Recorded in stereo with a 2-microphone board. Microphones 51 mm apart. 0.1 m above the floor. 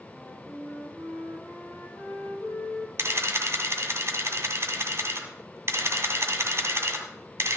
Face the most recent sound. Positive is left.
turn(degrees=-50)  # may be behind; listen again after turning